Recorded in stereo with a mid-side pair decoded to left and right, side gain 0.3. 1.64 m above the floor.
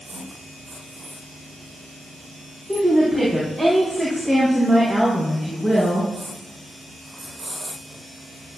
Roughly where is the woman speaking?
Ahead.